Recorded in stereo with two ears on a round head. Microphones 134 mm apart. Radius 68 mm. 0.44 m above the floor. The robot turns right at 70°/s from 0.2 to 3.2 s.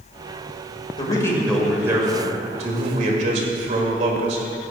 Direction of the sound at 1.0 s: 135° left.